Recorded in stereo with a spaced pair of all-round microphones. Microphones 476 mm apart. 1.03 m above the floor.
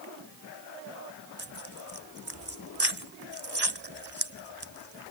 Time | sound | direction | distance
1.4 | tearing paper | 55° right (ahead or behind) | ?